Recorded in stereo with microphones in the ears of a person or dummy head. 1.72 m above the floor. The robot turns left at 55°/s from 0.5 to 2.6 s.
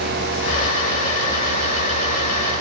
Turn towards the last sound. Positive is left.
No sound to turn to.